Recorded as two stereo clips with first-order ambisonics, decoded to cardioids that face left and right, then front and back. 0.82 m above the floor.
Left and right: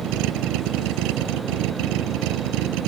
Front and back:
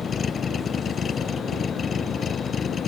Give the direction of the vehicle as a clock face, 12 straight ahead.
2 o'clock.